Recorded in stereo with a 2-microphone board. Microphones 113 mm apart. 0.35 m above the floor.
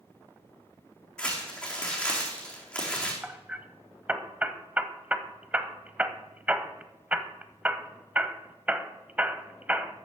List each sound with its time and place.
1.2 s crumpling: 10° left (ahead or behind), 3.5 m
3.2 s hammering: 15° right (ahead or behind), 0.7 m